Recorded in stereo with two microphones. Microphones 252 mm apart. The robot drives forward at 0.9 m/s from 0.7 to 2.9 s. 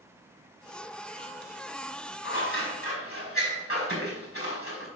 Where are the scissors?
55° left (ahead or behind), 5.5 m; by 4.9 s 60° left (ahead or behind), 5.5 m.